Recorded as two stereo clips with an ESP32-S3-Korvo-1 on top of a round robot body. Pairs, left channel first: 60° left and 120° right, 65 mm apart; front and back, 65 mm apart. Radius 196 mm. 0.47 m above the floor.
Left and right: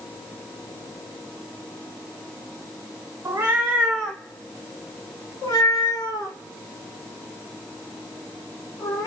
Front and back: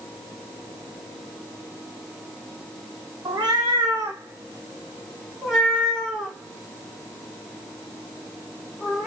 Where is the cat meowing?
160° right, 0.6 m; by 9.1 s 80° left, 3 m.